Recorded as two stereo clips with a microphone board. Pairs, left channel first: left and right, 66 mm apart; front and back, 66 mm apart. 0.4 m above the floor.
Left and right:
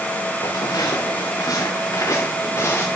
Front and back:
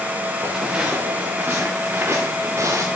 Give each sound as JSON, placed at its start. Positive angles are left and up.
{"t": 0.4, "sound": "footsteps", "azimuth_deg": 100, "distance_m": 3.0}